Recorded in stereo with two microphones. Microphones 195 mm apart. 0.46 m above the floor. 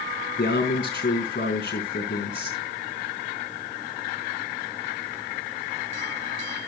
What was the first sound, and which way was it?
A man speaking, 55° left (ahead or behind).